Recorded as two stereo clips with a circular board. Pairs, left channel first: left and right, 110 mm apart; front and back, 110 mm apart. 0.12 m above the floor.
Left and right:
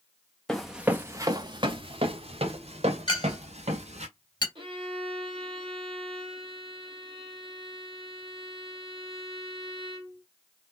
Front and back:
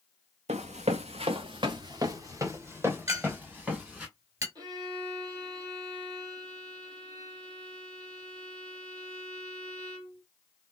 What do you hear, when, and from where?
0.5 s running footsteps: 175° left, 0.6 m; by 4.1 s 100° right, 1.8 m
3.1 s a clink: 125° left, 1.3 m
4.5 s a violin: 130° right, 1.5 m